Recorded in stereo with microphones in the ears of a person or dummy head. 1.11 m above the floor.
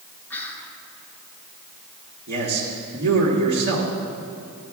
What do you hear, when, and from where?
0.3 s whispering: 10° left (ahead or behind), 1.6 m
2.3 s a man speaking: 65° right (ahead or behind), 1.7 m